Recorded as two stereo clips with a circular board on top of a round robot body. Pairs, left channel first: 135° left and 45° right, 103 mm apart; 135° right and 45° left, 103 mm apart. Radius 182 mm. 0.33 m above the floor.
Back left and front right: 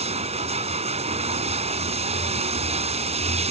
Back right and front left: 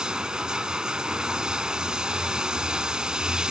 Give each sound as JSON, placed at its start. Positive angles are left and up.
{"t": 0.0, "sound": "running water", "azimuth_deg": -35}